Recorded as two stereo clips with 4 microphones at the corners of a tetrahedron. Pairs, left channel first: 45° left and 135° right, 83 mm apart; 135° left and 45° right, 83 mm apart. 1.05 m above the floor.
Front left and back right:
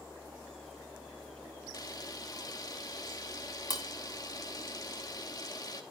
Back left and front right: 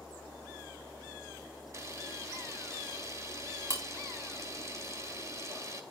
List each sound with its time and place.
1.7 s a camera shutter: 5° left, 2.5 m